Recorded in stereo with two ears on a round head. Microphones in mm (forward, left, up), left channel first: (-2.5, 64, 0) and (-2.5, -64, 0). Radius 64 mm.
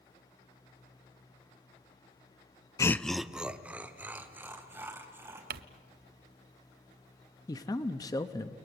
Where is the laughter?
25° left (ahead or behind), 0.5 m; by 5.4 s 15° right (ahead or behind), 4 m.